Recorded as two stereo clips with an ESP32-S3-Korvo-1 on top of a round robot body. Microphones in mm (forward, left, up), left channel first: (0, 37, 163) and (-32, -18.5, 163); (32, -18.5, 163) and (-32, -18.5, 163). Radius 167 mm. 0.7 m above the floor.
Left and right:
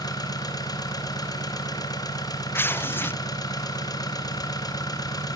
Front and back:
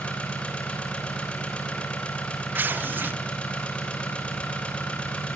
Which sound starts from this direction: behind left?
Tearing paper, at 2.5 s.